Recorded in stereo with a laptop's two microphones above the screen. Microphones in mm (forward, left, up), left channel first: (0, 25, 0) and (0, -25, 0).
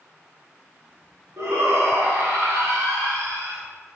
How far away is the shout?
About 2 m.